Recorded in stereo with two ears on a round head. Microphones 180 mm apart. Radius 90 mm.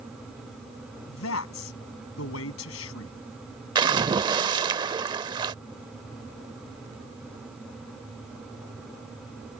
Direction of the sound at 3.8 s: 20° right (ahead or behind).